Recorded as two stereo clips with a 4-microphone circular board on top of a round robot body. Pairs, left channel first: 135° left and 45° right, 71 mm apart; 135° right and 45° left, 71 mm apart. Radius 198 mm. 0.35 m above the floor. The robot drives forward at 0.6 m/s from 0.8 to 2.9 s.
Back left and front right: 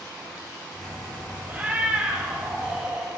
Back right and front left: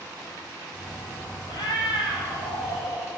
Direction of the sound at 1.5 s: 110° right.